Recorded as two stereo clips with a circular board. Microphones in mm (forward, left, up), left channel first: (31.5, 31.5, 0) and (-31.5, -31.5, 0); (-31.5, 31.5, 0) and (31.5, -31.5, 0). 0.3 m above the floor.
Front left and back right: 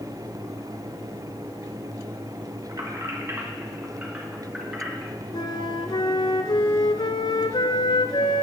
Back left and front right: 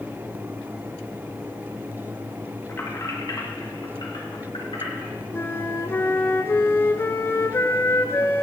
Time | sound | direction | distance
2.7 | keys jangling | 165° right | 1.5 m
5.3 | a flute | 70° left | 0.6 m